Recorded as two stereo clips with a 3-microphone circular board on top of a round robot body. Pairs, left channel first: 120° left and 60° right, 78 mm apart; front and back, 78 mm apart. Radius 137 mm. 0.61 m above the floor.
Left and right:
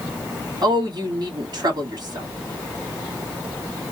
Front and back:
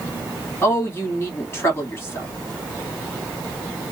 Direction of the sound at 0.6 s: 50° right.